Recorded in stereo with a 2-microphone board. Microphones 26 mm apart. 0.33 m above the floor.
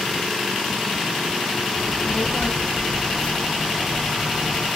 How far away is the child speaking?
About 1.3 m.